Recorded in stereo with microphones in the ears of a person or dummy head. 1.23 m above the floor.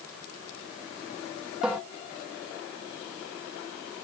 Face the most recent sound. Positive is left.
turn(degrees=-5)  # may be behind; listen again after turning